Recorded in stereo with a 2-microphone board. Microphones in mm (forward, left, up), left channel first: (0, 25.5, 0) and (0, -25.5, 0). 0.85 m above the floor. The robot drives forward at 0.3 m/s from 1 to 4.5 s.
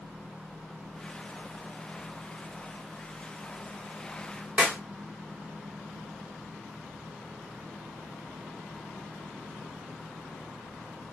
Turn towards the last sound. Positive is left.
turn(degrees=-25)  # may be behind; listen again after turning